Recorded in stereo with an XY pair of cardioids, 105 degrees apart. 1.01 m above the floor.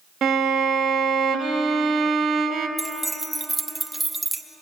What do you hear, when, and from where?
0.2 s a violin: 55° right, 1.2 m
2.8 s keys jangling: 10° right, 0.7 m